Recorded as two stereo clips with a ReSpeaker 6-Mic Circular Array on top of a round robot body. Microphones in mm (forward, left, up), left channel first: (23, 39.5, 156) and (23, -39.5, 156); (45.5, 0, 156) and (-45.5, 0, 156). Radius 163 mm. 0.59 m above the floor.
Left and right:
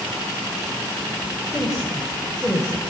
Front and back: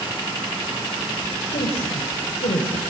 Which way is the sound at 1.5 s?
5° right.